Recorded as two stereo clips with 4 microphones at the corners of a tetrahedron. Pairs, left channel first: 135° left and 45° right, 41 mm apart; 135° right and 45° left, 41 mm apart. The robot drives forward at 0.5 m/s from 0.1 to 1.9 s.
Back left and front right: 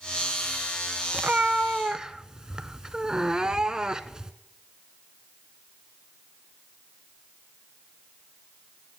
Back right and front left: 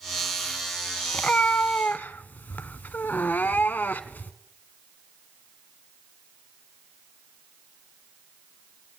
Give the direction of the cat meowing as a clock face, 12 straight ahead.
3 o'clock.